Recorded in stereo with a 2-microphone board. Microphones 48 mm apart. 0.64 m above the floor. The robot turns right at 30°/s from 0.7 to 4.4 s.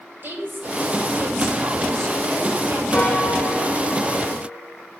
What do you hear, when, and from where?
0.2 s a woman speaking: 130° right, 2 m; by 2.8 s 70° right, 2 m
2.9 s a piano: 55° left, 2.5 m; by 4.6 s 100° left, 2.5 m